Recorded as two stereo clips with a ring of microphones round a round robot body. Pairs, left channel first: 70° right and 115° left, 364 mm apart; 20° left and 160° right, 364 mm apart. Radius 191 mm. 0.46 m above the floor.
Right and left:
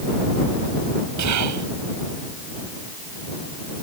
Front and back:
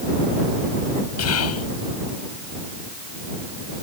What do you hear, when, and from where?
1.2 s whispering: 70° left